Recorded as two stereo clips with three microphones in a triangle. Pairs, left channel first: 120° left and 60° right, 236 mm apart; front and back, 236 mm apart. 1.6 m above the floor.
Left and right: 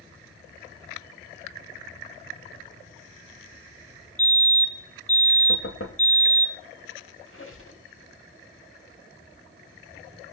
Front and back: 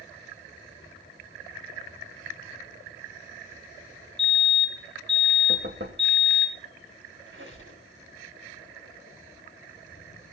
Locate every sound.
4.2 s a fire alarm: 140° left, 2.5 m
5.5 s knocking: 145° left, 2.5 m
7.3 s a squeak: 145° left, 6 m